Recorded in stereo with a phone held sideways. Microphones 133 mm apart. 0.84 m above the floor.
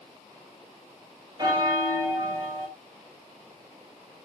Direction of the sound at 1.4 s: 30° right (ahead or behind).